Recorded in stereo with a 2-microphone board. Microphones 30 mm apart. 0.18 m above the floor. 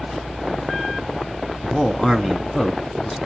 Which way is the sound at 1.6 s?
20° left (ahead or behind).